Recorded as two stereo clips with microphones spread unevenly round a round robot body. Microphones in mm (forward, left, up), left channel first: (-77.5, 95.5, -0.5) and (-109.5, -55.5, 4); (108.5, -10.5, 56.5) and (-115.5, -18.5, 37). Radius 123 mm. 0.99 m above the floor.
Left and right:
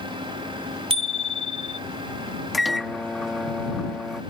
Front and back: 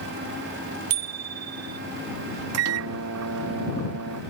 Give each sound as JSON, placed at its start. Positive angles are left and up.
{"t": 0.9, "sound": "a bicycle bell", "azimuth_deg": -155}
{"t": 2.5, "sound": "a microwave", "azimuth_deg": 170}